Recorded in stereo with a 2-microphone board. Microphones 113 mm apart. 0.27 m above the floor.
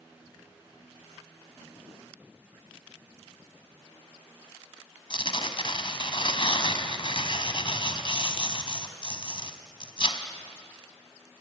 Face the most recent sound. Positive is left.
turn(degrees=50)  # may be behind; listen again after turning